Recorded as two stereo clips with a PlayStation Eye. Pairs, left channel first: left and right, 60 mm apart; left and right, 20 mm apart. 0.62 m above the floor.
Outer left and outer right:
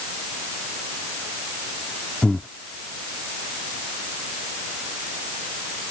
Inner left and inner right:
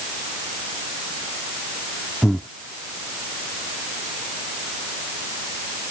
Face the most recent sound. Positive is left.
turn(degrees=20)  # may be behind; listen again after turning